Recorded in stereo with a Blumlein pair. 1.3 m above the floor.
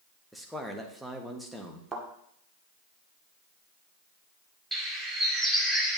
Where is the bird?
Straight ahead, 2 m.